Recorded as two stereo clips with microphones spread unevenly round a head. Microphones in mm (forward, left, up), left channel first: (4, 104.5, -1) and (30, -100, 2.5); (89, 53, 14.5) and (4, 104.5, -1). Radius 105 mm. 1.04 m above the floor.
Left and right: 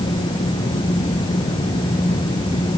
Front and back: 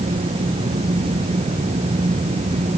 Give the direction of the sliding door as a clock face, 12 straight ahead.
I don't hear a sliding door.